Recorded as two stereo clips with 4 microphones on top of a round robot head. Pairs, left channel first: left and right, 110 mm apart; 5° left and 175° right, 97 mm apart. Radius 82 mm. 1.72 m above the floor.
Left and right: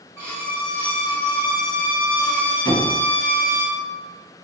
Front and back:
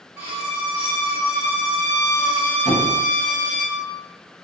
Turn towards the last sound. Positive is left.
turn(degrees=35)